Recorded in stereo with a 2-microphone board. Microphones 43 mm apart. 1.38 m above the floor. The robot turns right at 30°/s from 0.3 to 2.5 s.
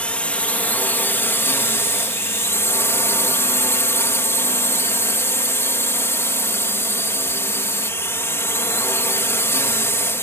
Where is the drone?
30° left; by 10.2 s 95° left.